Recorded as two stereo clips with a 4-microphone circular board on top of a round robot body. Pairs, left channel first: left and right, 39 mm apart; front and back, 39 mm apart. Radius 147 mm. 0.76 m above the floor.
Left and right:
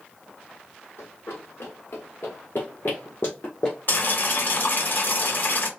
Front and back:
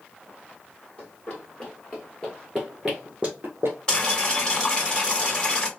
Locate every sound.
1.0 s running footsteps: 65° left, 1.5 m; by 3.8 s straight behind, 0.7 m
3.9 s boiling: 65° left, 1.9 m